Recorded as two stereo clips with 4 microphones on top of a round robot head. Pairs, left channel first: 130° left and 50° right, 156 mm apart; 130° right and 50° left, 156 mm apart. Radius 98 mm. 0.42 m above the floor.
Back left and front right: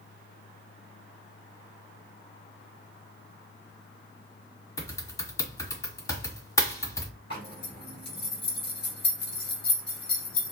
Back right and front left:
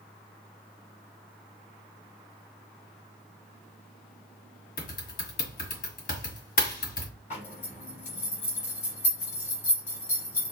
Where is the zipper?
170° right, 2 m.